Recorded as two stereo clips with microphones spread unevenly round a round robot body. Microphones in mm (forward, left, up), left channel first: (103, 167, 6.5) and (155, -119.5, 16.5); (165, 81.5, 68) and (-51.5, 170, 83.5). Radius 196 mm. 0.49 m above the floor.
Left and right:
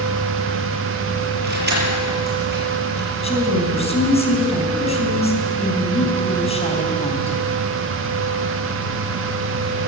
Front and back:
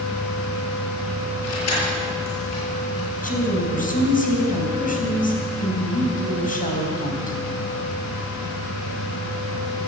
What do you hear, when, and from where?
1.4 s keys jangling: 25° right, 7 m
3.1 s a woman speaking: 30° left, 4 m